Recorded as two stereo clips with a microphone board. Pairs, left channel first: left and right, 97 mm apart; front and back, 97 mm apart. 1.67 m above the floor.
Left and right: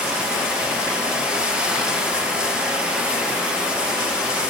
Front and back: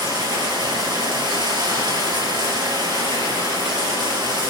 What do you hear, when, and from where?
0.0 s running water: 165° right, 2.5 m